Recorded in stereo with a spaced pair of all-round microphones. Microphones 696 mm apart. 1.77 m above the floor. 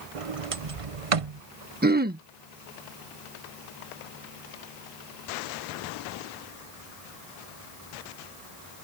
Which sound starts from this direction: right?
A sliding door, at 0.1 s.